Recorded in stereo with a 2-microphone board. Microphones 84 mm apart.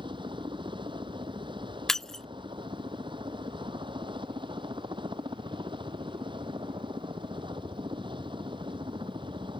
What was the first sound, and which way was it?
A helicopter, 70° right (ahead or behind).